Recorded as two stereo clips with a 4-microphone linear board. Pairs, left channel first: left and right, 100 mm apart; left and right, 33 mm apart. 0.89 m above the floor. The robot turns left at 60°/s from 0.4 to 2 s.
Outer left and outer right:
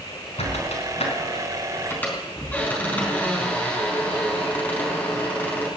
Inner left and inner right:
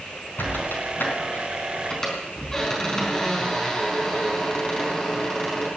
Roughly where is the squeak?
Left.